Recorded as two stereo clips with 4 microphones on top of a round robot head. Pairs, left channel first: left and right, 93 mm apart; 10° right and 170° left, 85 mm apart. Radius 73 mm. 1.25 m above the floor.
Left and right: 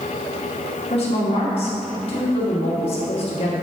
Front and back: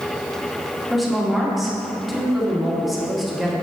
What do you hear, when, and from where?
0.9 s a woman speaking: 80° left, 2 m